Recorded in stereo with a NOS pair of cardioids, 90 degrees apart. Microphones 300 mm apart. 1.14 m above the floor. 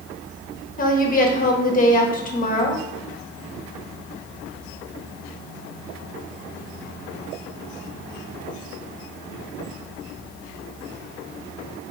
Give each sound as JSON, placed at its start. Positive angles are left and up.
{"t": 0.8, "sound": "a woman speaking", "azimuth_deg": 25, "distance_m": 1.2}